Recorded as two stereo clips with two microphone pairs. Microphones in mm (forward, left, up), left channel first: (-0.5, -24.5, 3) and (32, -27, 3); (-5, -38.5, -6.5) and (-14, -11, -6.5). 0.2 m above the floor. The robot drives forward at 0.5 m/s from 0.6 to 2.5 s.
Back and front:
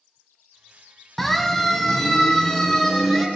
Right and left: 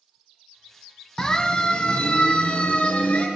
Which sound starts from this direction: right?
A siren, at 1.2 s.